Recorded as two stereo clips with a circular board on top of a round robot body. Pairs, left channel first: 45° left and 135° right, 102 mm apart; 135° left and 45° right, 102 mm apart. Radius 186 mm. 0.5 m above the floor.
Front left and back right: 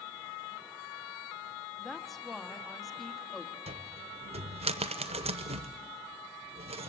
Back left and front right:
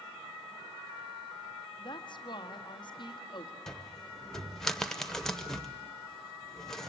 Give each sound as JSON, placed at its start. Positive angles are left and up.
{"t": 1.8, "sound": "a woman speaking", "azimuth_deg": 130, "distance_m": 1.9}
{"t": 3.7, "sound": "a cupboard door", "azimuth_deg": -140, "distance_m": 0.6}